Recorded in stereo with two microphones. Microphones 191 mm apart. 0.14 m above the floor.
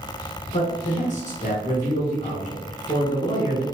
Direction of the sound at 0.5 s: 40° left (ahead or behind).